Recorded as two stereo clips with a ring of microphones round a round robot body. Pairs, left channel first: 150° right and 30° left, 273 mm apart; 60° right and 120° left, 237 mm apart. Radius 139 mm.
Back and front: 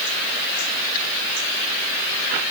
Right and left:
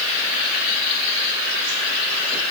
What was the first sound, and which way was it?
Only background noise.